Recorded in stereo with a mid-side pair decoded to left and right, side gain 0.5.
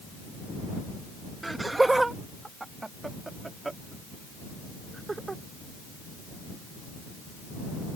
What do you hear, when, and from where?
1.4 s laughter: 15° right; by 5.4 s 20° right